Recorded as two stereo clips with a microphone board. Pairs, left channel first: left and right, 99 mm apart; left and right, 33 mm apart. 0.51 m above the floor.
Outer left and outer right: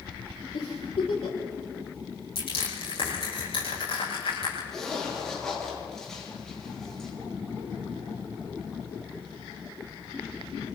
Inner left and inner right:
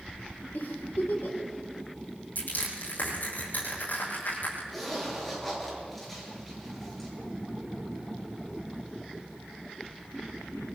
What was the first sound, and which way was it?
A giggle, 80° left.